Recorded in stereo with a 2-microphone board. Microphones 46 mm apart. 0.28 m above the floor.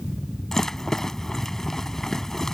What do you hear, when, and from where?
0.5 s a rattle: 10° left (ahead or behind)